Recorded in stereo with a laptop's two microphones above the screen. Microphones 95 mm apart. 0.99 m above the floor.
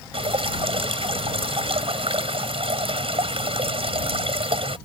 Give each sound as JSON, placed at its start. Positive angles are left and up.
{"t": 0.1, "sound": "dripping", "side_deg": -80}